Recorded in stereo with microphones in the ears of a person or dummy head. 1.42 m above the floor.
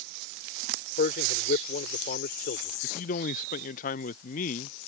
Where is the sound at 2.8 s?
40° left (ahead or behind).